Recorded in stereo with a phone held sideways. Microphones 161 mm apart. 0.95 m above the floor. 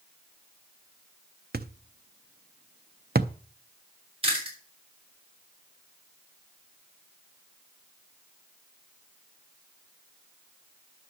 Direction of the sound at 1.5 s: 75° right (ahead or behind).